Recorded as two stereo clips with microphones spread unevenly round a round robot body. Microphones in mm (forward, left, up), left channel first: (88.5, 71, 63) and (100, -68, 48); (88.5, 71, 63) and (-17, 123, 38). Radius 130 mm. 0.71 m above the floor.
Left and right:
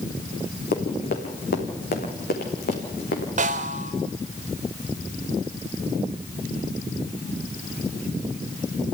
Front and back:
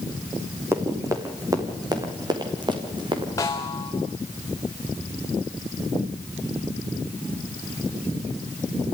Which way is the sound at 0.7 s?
85° left.